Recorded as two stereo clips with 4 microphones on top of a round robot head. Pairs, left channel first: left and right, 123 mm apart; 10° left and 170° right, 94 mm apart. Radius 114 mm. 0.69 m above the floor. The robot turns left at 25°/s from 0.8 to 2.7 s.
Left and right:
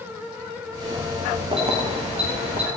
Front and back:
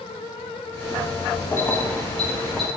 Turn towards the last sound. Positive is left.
turn(degrees=-85)